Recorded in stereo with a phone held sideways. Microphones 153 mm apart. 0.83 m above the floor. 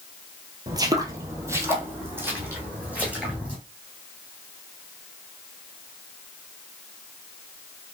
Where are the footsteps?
25° right (ahead or behind), 1.0 m; by 3.6 s 10° right (ahead or behind), 3 m.